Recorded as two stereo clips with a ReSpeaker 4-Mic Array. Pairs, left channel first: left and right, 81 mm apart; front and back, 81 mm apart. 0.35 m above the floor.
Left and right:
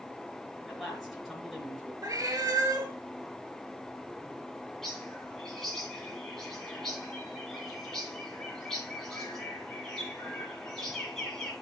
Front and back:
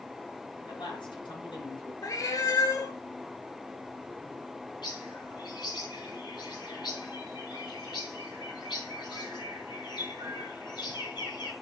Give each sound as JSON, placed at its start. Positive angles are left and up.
{"t": 0.7, "sound": "a man speaking", "azimuth_deg": 0, "distance_m": 5.0}
{"t": 2.0, "sound": "a cat meowing", "azimuth_deg": -45, "distance_m": 1.3}
{"t": 4.8, "sound": "a bird", "azimuth_deg": 5, "distance_m": 3.0}